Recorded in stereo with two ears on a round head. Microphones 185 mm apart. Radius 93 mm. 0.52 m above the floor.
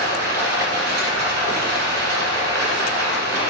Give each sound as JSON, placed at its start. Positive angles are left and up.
{"t": 0.0, "sound": "running water", "side_deg": -60, "distance_m": 2.0}